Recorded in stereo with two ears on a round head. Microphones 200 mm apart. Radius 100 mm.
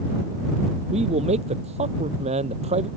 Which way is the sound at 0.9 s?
30° right (ahead or behind).